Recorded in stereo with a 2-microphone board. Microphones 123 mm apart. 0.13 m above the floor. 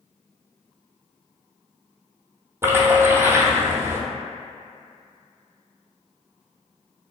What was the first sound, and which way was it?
A splash, 20° right (ahead or behind).